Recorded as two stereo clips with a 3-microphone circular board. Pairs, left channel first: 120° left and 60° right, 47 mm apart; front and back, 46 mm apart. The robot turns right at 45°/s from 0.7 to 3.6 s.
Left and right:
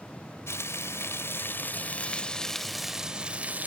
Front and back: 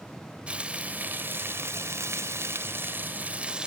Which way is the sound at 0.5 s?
115° left.